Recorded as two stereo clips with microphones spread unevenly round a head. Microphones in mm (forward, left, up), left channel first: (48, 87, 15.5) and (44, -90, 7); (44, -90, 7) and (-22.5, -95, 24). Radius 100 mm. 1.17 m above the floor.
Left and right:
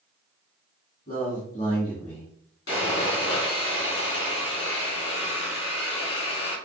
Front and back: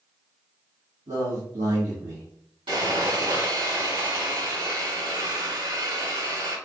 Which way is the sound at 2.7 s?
135° left.